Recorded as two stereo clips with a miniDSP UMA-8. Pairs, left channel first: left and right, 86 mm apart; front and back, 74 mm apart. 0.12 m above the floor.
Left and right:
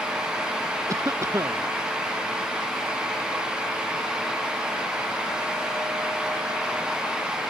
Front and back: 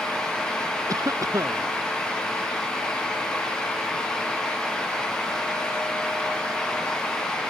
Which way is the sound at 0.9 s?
145° right.